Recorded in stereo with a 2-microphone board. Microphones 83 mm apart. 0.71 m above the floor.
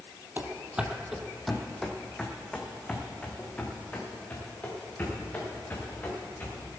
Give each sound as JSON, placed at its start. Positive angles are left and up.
{"t": 0.4, "sound": "running footsteps", "side_deg": -25, "distance_m": 1.1}